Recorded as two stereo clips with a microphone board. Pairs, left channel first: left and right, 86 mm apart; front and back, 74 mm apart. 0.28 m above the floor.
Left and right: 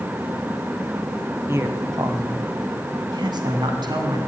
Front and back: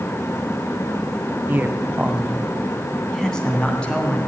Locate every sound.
1.5 s a man speaking: 135° right, 1.7 m; by 4.3 s 70° right, 3.5 m